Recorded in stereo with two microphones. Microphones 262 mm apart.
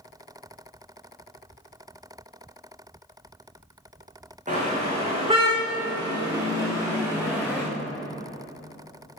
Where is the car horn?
30° right (ahead or behind), 6 m; by 7.6 s 5° right (ahead or behind), 6.5 m.